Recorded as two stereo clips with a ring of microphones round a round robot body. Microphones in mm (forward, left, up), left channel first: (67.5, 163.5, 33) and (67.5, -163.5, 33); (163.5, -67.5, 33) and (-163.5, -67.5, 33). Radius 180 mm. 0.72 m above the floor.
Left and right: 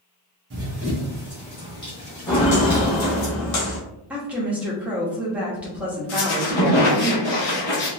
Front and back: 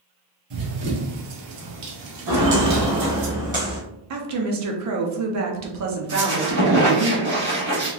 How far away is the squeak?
About 1.3 m.